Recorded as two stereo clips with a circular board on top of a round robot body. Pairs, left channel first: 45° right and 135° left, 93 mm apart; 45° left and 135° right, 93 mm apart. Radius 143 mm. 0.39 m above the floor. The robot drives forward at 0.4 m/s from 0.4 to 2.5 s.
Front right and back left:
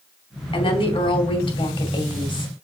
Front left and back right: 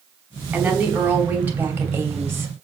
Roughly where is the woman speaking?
Ahead right.